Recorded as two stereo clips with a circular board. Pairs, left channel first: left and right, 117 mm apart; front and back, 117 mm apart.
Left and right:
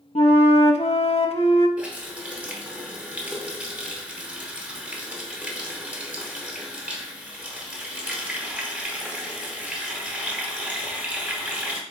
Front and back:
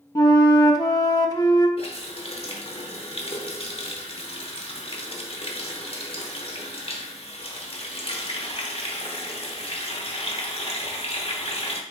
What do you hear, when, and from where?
0.1 s a flute: 55° left, 0.5 m
1.8 s a running tap: 15° right, 0.9 m